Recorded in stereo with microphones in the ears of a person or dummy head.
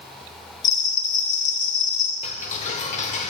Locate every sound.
0.6 s a bell: 15° left (ahead or behind), 1.0 m
2.2 s ticking: 40° left (ahead or behind), 0.9 m